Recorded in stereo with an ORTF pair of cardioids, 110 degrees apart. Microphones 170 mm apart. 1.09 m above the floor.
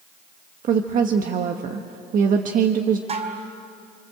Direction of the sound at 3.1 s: 40° right.